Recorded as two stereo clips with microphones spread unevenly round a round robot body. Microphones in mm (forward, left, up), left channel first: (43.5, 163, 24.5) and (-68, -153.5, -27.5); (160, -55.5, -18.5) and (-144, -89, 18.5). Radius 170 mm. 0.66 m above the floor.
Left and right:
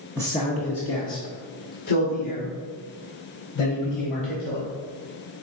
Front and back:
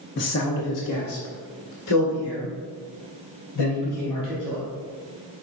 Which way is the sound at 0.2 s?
25° right.